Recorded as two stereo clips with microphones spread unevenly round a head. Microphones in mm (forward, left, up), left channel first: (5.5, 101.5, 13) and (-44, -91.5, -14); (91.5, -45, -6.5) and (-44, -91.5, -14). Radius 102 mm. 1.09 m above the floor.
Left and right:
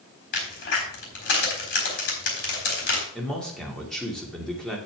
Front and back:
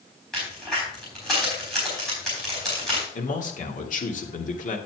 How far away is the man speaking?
About 2.5 m.